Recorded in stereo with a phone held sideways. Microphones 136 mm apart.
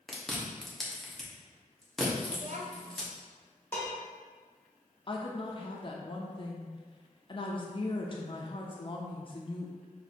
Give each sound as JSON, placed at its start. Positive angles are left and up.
{"t": 0.1, "sound": "chewing", "side_deg": 0, "distance_m": 1.0}
{"t": 2.3, "sound": "a child speaking", "side_deg": -60, "distance_m": 0.8}
{"t": 3.7, "sound": "dishes clattering", "side_deg": 15, "distance_m": 1.3}
{"t": 5.1, "sound": "a woman speaking", "side_deg": 40, "distance_m": 0.5}